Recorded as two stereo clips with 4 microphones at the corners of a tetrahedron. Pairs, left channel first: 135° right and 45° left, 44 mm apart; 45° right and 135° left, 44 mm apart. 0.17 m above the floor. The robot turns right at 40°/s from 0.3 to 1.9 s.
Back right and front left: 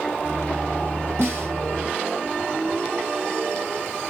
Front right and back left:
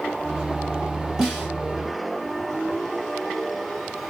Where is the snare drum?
55° left, 2.5 m; by 1.5 s 70° left, 2.5 m.